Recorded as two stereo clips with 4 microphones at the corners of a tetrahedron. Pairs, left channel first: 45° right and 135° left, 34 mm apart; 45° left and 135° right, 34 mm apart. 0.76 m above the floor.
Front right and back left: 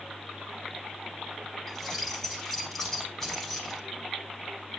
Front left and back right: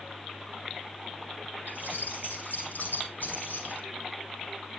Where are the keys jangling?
35° left, 4 m.